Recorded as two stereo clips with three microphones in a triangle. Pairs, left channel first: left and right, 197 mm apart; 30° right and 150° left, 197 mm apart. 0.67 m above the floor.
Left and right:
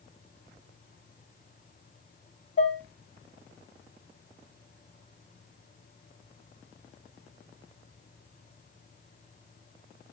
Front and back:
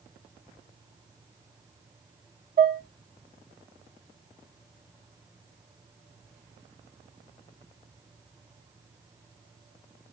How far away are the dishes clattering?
About 0.9 m.